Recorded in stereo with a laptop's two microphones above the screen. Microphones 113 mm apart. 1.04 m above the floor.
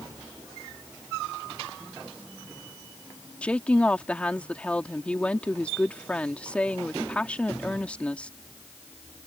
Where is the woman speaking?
10° left (ahead or behind).